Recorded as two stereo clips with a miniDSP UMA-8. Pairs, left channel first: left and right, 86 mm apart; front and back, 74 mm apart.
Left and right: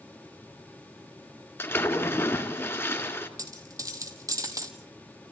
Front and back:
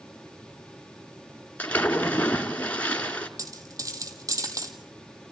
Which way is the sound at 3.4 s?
140° right.